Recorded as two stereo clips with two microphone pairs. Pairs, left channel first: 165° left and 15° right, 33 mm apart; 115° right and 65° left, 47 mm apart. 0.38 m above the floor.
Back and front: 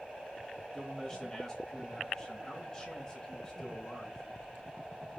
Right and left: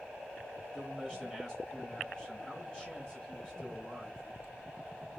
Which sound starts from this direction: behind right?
A man speaking, at 0.7 s.